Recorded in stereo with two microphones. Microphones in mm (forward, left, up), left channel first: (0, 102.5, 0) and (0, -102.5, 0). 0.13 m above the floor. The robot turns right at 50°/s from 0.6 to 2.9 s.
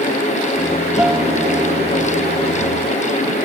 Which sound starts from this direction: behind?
A guitar, at 1.0 s.